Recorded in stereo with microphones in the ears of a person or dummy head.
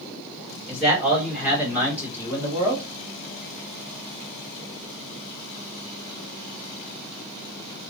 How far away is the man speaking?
About 2.5 m.